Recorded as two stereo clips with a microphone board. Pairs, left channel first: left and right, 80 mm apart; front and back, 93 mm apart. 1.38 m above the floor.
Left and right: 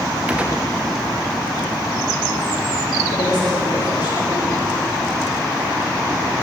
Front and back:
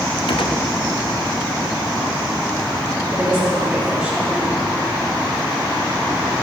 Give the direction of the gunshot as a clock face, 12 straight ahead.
1 o'clock.